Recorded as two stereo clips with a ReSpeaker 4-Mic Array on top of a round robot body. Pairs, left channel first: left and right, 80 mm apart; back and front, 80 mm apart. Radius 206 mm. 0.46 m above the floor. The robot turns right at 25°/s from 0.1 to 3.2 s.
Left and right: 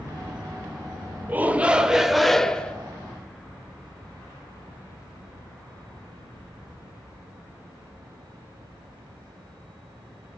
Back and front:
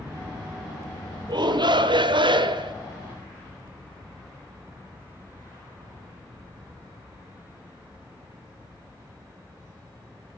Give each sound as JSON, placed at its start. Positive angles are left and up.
{"t": 1.3, "sound": "a shout", "azimuth_deg": -25, "distance_m": 2.0}